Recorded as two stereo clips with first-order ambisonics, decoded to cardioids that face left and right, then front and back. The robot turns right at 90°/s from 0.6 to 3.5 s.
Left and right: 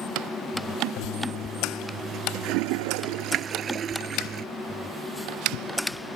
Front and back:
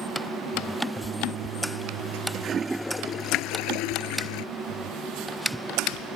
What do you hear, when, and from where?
1.0 s a toilet flushing: 105° left; by 4.5 s 30° right